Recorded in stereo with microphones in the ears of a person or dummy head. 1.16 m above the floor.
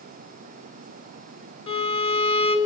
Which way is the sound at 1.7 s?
30° left (ahead or behind).